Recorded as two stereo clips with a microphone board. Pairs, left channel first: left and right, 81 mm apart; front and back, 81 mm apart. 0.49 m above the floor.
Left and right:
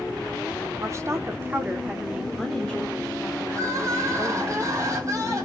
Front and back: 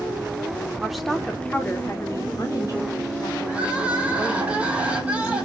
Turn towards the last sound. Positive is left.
turn(degrees=-115)